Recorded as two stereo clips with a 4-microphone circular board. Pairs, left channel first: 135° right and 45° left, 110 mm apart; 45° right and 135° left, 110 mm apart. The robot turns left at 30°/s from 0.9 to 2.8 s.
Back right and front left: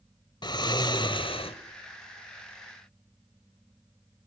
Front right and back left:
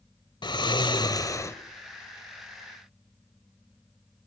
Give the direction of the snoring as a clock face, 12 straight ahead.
3 o'clock.